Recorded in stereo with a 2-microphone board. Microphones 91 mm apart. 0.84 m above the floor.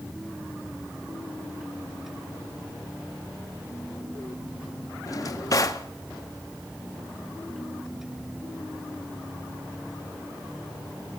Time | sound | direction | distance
5.1 | a drawer | 40° left (ahead or behind) | 0.6 m